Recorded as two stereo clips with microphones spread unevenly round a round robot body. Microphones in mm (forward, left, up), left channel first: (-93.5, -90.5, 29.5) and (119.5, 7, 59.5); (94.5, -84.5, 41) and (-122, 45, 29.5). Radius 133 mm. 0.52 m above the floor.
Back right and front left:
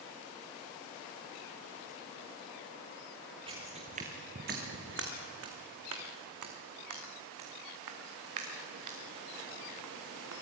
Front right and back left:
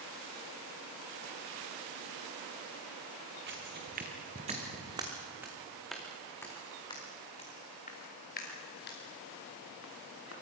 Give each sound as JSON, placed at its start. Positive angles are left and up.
{"t": 3.5, "sound": "footsteps", "azimuth_deg": 95, "distance_m": 3.0}